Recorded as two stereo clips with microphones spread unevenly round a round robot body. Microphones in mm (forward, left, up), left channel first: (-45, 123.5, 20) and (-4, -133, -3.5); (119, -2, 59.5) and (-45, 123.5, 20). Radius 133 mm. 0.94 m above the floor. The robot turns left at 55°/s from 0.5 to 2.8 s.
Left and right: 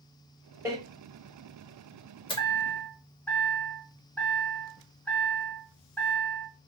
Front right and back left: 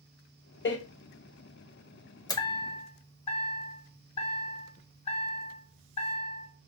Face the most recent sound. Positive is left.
turn(degrees=10)